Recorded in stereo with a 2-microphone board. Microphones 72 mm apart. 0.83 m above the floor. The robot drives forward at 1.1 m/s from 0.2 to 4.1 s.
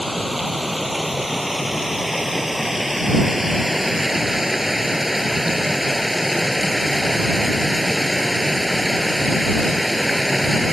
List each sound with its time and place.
0.0 s running water: 5° right (ahead or behind)